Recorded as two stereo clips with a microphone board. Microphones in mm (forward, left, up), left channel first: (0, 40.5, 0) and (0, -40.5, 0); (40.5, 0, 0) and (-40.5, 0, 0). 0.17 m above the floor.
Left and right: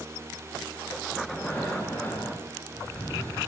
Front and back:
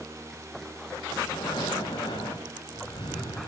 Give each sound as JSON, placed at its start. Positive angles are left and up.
{"t": 1.2, "sound": "breathing", "azimuth_deg": 25, "distance_m": 8.5}